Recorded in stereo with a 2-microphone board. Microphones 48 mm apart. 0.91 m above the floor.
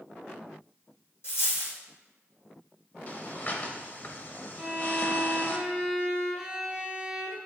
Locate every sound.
1.2 s a dropped coin: 60° left (ahead or behind), 2 m
3.1 s breathing: 40° left (ahead or behind), 0.8 m
4.6 s a violin: 5° right (ahead or behind), 1.2 m